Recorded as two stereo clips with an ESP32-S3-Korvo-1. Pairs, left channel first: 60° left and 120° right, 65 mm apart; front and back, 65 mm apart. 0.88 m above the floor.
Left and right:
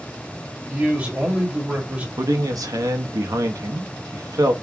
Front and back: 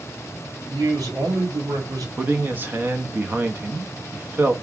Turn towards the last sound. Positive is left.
turn(degrees=-125)